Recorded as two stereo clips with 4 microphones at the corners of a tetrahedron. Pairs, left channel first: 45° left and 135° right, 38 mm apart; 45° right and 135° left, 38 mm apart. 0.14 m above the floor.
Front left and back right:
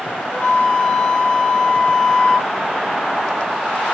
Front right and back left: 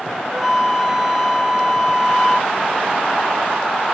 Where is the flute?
65° left, 0.5 m.